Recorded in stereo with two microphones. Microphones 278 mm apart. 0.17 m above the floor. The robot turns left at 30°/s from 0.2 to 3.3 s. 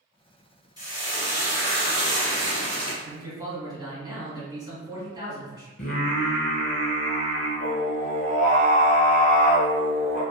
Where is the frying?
15° right, 1.3 m; by 2.9 s 85° right, 1.3 m.